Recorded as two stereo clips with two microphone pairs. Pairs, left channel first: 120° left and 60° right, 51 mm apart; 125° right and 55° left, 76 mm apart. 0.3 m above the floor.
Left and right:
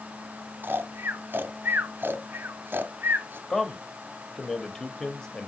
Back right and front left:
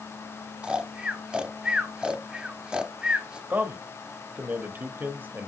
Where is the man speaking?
55° left, 1.0 m.